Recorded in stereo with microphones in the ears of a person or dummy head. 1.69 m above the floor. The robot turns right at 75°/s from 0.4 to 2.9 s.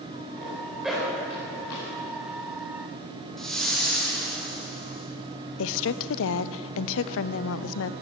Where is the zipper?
35° right (ahead or behind), 4 m; by 1.9 s 70° left (ahead or behind), 4 m.